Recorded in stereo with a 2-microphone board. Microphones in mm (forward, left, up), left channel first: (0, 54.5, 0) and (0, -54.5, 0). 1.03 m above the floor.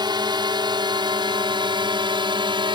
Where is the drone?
45° right (ahead or behind); by 2.8 s 50° right (ahead or behind).